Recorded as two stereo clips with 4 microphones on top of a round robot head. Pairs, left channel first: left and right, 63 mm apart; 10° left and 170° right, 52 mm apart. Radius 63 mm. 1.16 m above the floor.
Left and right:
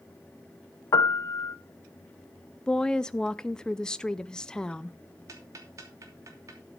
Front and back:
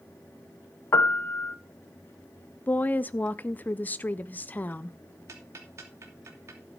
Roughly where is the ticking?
Behind right.